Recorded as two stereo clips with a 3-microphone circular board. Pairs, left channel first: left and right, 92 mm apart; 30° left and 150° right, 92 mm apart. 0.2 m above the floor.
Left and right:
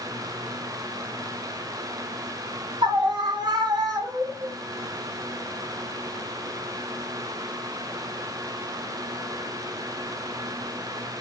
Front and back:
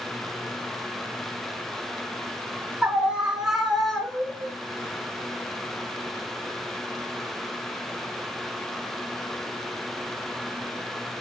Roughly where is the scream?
Right.